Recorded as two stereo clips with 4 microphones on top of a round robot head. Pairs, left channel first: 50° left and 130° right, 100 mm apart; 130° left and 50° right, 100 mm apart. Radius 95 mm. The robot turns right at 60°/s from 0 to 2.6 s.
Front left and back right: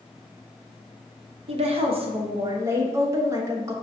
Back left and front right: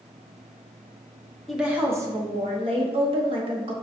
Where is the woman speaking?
140° right, 0.9 m; by 3.7 s 70° right, 0.9 m.